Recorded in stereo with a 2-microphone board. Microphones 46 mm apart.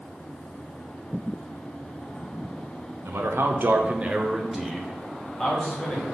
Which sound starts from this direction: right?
A man speaking, at 3.0 s.